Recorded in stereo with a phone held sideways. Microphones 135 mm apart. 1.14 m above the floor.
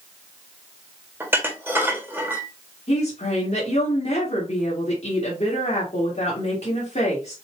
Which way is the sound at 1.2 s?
15° right (ahead or behind).